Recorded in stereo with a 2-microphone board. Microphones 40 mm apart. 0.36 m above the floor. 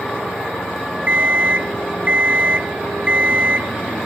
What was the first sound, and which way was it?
An alarm clock, 30° right (ahead or behind).